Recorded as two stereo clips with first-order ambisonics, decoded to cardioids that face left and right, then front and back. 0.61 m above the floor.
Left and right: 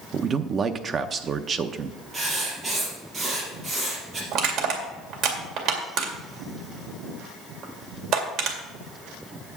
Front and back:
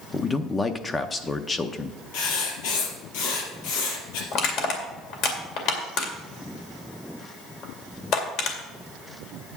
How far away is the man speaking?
About 0.6 m.